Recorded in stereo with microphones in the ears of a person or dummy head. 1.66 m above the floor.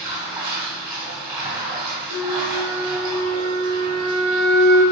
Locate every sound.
0.0 s running water: 15° right (ahead or behind), 2 m
2.1 s a flute: 65° right (ahead or behind), 1.4 m